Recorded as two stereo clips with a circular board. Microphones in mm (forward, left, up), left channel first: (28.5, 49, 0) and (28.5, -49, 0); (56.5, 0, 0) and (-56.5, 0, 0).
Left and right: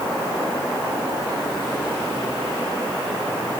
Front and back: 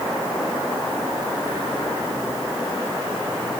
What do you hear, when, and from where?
Only background noise.